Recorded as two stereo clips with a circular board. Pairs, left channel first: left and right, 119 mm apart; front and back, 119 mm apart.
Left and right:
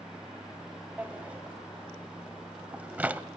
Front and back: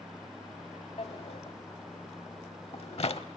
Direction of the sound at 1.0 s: 15° right.